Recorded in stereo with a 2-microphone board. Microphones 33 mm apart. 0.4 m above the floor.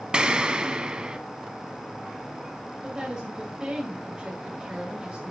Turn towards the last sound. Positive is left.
turn(degrees=-30)  # may be behind; listen again after turning